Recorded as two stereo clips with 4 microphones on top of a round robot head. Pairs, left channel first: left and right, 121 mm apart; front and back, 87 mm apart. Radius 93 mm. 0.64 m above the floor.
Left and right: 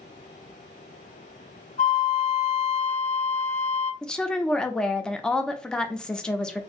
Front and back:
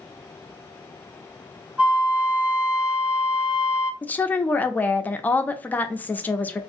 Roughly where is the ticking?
No ticking in this recording.